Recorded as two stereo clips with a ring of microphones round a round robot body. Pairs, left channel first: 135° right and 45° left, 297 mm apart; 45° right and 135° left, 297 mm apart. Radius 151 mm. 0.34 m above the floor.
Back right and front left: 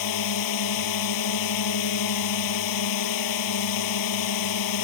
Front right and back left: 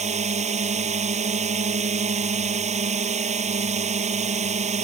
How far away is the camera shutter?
I don't hear a camera shutter.